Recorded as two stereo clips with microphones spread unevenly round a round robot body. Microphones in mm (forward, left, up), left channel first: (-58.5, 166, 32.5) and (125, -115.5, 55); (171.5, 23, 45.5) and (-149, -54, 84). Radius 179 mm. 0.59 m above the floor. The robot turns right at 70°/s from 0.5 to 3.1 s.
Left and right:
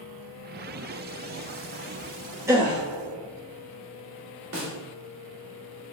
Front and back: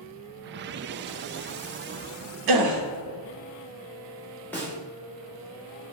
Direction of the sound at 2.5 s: 140° right.